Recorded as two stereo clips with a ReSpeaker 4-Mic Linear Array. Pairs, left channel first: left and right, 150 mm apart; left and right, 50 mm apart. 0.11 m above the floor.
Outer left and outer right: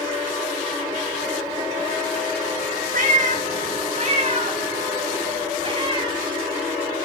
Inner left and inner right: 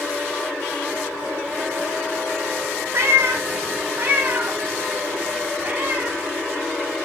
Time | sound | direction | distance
2.9 | a cat meowing | 65° right (ahead or behind) | 1.0 m